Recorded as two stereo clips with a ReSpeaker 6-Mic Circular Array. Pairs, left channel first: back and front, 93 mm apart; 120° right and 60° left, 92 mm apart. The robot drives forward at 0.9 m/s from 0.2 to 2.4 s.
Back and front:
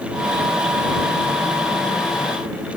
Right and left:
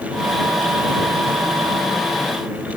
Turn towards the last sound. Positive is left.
No sound to turn to.